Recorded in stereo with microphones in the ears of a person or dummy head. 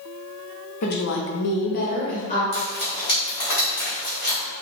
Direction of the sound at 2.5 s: 30° left (ahead or behind).